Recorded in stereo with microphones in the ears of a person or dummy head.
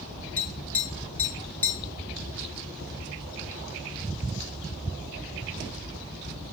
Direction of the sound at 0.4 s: 5° left (ahead or behind).